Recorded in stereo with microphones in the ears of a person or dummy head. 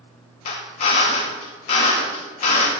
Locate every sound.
0.5 s a drill: 35° left (ahead or behind), 0.8 m